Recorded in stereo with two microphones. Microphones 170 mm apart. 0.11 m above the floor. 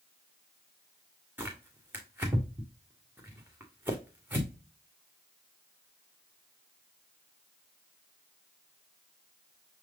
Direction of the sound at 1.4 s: 10° right (ahead or behind).